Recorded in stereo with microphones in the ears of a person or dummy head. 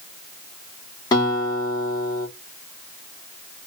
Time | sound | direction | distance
1.1 | a guitar | 20° left (ahead or behind) | 1.3 m